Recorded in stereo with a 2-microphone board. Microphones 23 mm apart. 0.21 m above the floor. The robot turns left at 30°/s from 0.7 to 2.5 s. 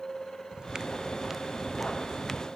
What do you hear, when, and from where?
0.5 s footsteps: 35° right (ahead or behind); by 2.5 s 25° left (ahead or behind)